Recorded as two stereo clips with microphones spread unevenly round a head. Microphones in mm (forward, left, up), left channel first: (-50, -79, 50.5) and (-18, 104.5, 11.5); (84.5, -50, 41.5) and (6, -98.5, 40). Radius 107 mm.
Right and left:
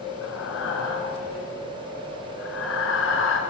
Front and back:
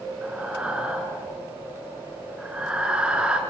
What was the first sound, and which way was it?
Breathing, 70° right.